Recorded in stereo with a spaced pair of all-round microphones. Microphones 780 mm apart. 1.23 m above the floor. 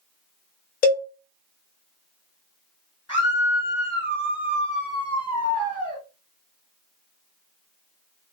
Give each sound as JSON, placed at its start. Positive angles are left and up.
{"t": 0.8, "sound": "a cowbell", "side_deg": 60, "distance_m": 0.6}
{"t": 3.1, "sound": "a scream", "side_deg": -5, "distance_m": 1.3}